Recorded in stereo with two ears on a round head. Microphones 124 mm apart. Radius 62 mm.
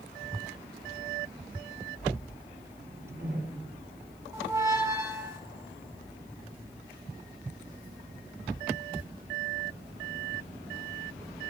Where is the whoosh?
80° right, 7 m.